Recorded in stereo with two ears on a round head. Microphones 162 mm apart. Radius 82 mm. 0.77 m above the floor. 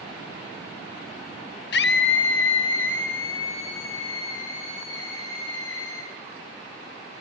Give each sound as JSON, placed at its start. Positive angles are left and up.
{"t": 1.7, "sound": "a scream", "side_deg": 60, "distance_m": 1.0}